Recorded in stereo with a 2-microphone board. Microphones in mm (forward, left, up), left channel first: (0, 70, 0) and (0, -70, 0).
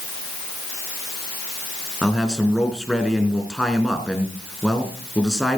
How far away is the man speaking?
About 4 m.